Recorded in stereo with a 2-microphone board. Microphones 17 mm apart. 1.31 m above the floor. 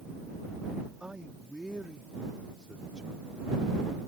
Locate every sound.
1.0 s a man speaking: 65° right (ahead or behind); by 3.3 s 75° right (ahead or behind)